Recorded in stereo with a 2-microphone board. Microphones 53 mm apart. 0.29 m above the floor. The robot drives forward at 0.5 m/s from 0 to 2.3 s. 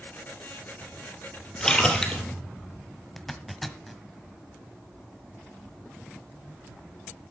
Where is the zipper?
Centre (ahead or behind), 1.1 m.